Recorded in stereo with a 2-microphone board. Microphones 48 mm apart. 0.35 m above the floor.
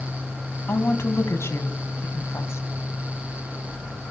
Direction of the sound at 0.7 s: 65° left (ahead or behind).